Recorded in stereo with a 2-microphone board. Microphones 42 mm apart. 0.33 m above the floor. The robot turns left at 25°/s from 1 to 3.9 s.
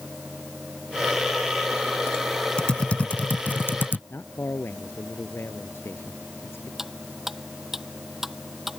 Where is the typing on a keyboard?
20° left (ahead or behind); by 4.0 s 50° left (ahead or behind).